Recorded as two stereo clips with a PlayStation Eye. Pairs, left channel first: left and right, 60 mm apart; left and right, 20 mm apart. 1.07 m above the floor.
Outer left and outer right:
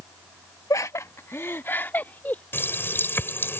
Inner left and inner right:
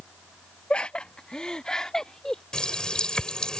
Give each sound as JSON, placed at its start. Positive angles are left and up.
{"t": 0.7, "sound": "laughter", "side_deg": 65}
{"t": 2.5, "sound": "a running tap", "side_deg": 40}